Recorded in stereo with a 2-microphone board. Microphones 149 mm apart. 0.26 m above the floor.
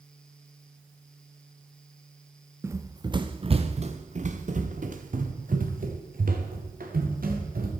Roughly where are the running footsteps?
Centre.